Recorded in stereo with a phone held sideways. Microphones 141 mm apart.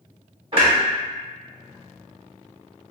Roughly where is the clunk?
Right.